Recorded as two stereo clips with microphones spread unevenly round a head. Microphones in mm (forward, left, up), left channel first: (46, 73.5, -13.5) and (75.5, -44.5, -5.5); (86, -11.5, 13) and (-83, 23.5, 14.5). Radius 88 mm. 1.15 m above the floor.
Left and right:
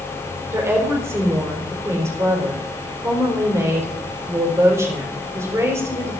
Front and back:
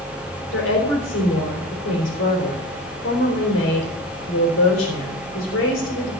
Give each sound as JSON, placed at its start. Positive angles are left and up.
{"t": 0.5, "sound": "a woman speaking", "azimuth_deg": -10, "distance_m": 3.5}